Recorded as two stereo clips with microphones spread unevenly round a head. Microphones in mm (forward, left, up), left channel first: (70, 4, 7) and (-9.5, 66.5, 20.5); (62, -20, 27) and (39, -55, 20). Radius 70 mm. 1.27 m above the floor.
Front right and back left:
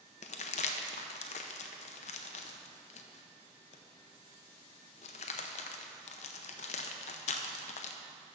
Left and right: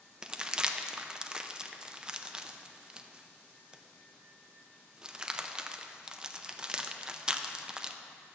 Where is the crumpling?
50° right, 0.6 m.